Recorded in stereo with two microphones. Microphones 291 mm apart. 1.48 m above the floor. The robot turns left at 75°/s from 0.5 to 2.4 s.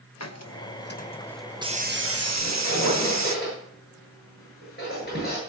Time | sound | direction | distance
0.2 | a hiss | 70° left | 1.0 m
2.4 | a squeak | 40° left (ahead or behind) | 7.5 m